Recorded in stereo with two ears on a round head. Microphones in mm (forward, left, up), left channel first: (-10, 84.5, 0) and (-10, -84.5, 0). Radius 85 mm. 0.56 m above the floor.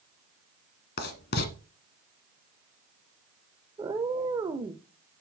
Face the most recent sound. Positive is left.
turn(degrees=-20)  # may be behind; listen again after turning